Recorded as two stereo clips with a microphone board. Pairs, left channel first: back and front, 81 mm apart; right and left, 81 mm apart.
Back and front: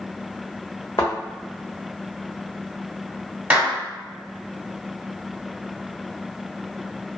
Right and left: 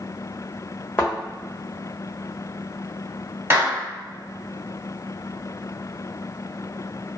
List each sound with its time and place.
1.0 s a thud: 150° right, 1.3 m
3.5 s a clap: 55° left, 1.1 m